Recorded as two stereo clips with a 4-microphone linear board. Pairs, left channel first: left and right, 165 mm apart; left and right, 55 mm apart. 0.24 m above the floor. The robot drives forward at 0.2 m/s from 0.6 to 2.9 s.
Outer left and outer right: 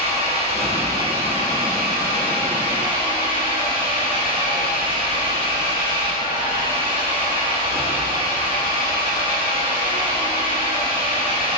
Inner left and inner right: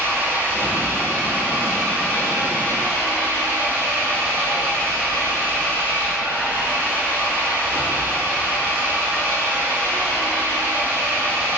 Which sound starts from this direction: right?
An engine running, at 0.0 s.